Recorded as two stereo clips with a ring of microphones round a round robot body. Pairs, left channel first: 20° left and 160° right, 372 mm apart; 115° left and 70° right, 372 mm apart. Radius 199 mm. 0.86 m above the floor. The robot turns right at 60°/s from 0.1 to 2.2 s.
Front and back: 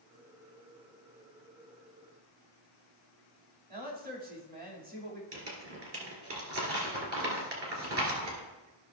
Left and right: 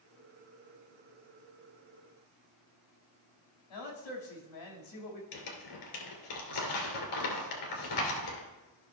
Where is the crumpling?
150° left, 2 m.